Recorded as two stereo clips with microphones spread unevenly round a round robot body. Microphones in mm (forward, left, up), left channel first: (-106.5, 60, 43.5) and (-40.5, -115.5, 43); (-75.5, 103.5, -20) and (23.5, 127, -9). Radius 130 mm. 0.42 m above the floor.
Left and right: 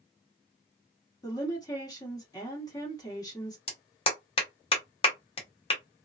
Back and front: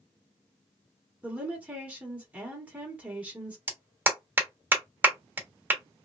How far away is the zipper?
No zipper in this recording.